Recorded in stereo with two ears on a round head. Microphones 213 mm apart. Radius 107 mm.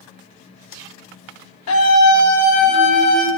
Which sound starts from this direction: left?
A scream, at 1.7 s.